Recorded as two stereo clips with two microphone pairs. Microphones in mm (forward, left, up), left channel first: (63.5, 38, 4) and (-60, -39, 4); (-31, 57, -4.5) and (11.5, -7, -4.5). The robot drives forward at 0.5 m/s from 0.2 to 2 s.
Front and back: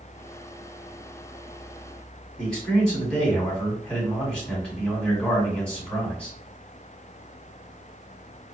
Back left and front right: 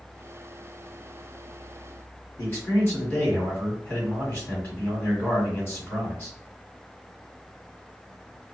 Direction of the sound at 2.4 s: 110° left.